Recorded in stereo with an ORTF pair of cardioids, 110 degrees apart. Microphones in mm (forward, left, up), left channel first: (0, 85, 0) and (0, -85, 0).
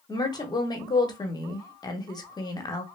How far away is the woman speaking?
About 0.9 m.